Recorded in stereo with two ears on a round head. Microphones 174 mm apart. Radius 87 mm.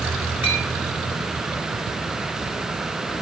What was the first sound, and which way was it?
A clink, 80° left.